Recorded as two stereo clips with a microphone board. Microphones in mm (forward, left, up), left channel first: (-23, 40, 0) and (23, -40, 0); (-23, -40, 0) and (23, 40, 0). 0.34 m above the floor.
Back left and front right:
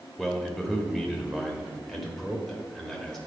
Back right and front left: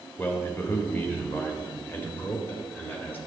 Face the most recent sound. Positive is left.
turn(degrees=-155)